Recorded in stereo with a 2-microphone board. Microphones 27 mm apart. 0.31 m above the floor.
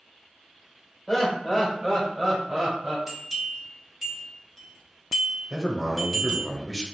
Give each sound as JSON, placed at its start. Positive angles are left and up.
{"t": 1.1, "sound": "laughter", "side_deg": 15, "distance_m": 1.6}
{"t": 3.1, "sound": "a bell", "side_deg": -10, "distance_m": 1.7}
{"t": 5.5, "sound": "a man speaking", "side_deg": -5, "distance_m": 1.1}